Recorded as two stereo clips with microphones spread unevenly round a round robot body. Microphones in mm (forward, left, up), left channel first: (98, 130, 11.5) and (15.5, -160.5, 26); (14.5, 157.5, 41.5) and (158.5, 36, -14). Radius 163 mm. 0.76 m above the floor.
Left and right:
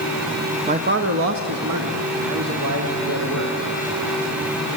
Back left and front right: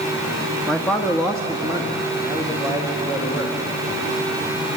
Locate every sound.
0.7 s a man speaking: 85° right, 0.7 m; by 3.6 s 155° right, 3 m